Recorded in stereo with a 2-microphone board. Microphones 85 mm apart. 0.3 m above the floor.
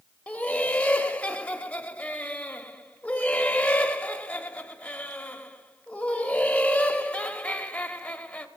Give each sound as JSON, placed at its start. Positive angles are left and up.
{"t": 0.3, "sound": "laughter", "side_deg": 15, "distance_m": 0.9}